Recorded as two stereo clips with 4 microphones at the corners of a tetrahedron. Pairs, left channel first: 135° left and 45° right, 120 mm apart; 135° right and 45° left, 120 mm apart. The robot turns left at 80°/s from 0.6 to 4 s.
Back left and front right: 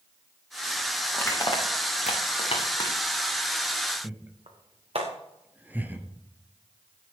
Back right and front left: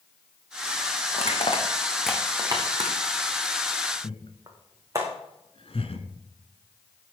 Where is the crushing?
145° right, 4 m; by 5.0 s 15° right, 4 m.